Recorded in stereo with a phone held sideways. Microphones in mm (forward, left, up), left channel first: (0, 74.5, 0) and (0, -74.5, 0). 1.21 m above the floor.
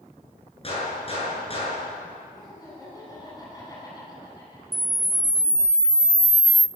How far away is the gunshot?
About 8.5 m.